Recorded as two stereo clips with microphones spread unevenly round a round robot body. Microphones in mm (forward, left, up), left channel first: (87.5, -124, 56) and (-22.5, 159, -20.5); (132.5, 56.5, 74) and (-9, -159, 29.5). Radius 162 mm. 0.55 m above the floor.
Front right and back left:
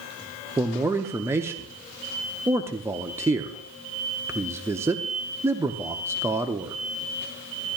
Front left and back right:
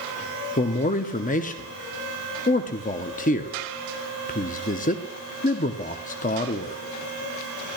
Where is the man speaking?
95° left, 0.6 m.